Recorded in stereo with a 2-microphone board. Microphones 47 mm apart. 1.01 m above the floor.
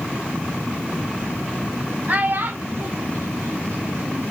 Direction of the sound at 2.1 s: 40° right (ahead or behind).